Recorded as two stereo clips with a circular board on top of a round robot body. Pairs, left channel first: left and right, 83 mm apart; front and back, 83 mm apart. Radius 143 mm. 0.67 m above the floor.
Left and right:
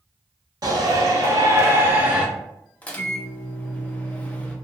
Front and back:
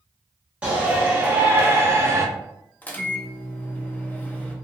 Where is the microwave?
40° left, 0.8 m.